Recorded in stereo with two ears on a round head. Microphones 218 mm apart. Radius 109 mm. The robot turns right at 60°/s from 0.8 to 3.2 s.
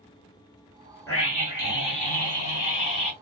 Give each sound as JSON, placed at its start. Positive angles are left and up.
{"t": 1.1, "sound": "a scream", "azimuth_deg": 15, "distance_m": 2.5}